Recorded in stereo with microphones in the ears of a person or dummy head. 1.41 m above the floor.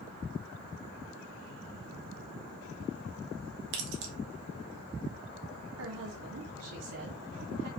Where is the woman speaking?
80° right, 1.8 m.